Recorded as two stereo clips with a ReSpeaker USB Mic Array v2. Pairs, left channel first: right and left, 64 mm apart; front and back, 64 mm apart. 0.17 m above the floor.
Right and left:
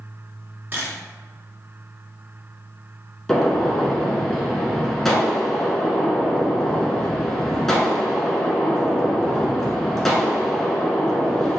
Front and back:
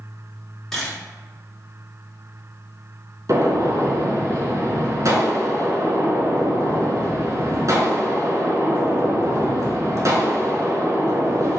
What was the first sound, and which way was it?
A camera shutter, 80° left.